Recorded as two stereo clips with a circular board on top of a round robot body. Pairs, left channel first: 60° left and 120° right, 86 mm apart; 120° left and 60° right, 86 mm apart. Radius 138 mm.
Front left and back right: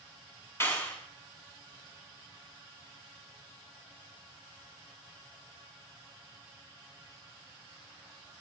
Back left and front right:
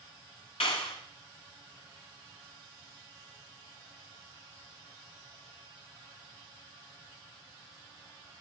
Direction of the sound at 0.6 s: 125° left.